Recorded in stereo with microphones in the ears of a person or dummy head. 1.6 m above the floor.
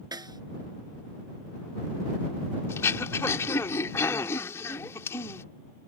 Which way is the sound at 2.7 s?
10° left (ahead or behind).